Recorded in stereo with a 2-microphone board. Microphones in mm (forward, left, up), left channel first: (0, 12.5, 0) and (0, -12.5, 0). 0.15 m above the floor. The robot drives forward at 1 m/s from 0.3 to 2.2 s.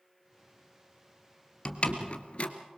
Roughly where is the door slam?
Left.